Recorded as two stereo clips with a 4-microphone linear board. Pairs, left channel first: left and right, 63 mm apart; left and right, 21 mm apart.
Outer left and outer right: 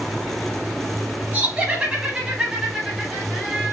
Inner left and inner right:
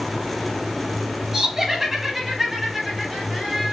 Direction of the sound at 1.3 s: 25° right (ahead or behind).